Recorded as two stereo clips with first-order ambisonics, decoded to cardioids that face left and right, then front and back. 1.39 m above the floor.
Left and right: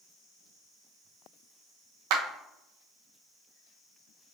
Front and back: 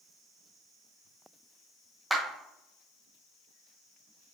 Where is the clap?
95° right, 1.0 m.